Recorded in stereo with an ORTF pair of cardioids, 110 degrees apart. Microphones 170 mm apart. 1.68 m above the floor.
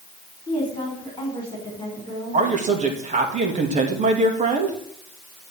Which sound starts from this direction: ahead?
A woman speaking, at 0.5 s.